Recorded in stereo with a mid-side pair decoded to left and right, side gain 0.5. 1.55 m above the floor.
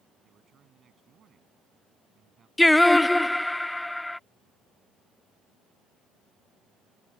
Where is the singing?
10° left.